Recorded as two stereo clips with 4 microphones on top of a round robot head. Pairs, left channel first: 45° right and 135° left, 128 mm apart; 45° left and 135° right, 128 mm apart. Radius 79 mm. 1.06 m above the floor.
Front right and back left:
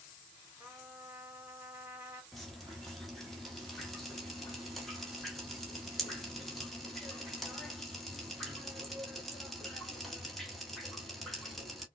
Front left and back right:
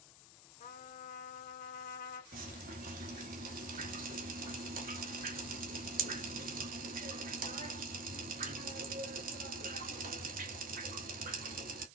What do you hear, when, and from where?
0.6 s a trumpet: 60° left, 1.7 m
2.3 s dripping: 135° right, 1.6 m